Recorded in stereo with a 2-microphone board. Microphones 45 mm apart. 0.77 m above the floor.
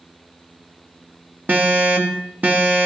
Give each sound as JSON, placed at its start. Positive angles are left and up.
{"t": 1.5, "sound": "an alarm", "side_deg": -40, "distance_m": 1.7}